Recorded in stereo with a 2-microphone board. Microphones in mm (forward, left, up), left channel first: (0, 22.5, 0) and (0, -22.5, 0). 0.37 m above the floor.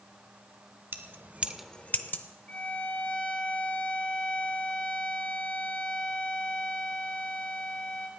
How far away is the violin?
About 1.6 m.